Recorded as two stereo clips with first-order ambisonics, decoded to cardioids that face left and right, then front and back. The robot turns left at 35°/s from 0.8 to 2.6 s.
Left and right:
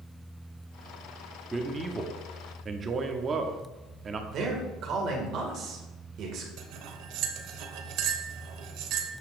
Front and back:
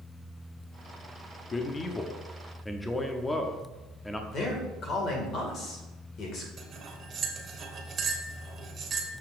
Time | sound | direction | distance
1.5 | a man speaking | 35° right | 0.6 m
4.3 | a man speaking | 50° right | 2 m
6.6 | cutlery clinking | 115° right | 1.2 m